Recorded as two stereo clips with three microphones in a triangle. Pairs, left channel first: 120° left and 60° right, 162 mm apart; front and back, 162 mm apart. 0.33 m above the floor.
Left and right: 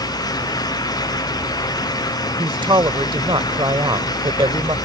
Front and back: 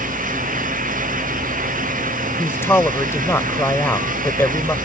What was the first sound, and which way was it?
A man speaking, 60° right.